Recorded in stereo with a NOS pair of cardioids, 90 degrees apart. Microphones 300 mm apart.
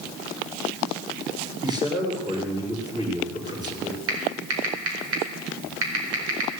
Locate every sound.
1.6 s a man speaking: 15° right, 5.5 m
4.1 s typing on a keyboard: 50° right, 4.5 m